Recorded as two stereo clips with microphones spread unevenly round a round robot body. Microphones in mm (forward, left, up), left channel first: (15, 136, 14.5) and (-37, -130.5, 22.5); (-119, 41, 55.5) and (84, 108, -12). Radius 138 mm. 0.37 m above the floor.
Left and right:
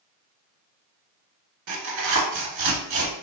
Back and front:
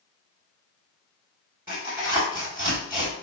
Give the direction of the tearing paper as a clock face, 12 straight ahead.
2 o'clock.